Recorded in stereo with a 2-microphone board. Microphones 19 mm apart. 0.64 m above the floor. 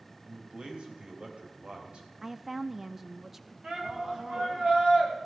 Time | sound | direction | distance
0.3 | a man speaking | 60° right (ahead or behind) | 3 m
2.2 | a woman speaking | 20° right (ahead or behind) | 0.5 m
3.6 | a shout | 55° right (ahead or behind) | 4 m